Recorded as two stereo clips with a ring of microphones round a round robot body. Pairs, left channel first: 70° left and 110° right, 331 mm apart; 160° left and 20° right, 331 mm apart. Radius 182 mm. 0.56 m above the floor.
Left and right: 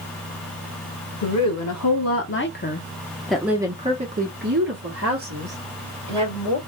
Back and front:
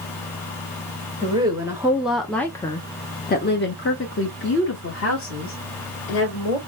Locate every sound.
1.2 s a woman speaking: 50° left, 1.6 m; by 6.6 s 150° right, 2.5 m